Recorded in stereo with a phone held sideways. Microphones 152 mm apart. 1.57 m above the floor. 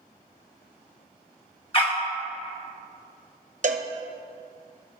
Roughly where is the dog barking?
Left.